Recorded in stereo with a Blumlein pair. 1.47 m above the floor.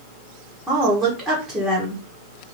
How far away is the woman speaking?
About 1.3 m.